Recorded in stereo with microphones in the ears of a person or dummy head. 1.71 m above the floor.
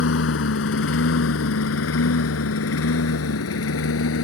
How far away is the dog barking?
No dog barking in this recording.